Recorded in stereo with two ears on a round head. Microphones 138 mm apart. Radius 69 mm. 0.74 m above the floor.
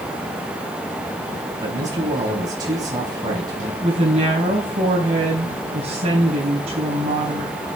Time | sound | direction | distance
1.6 | a man speaking | 25° right (ahead or behind) | 4 m
3.8 | a woman speaking | 40° right (ahead or behind) | 4 m